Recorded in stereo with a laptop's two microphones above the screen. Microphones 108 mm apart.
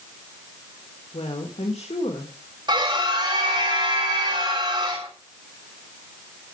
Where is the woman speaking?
65° left (ahead or behind), 1.7 m.